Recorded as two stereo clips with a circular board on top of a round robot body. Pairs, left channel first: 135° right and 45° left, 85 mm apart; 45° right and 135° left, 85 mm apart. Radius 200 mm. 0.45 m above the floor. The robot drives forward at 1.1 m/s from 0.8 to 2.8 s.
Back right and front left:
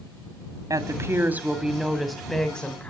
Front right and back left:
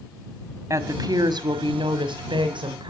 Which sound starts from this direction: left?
A woman speaking, at 0.7 s.